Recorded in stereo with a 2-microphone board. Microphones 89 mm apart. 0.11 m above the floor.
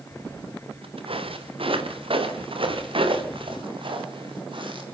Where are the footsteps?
85° right, 2.5 m; by 4.8 s 65° right (ahead or behind), 5 m.